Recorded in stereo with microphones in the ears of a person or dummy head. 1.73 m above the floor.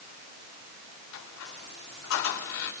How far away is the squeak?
About 4.5 m.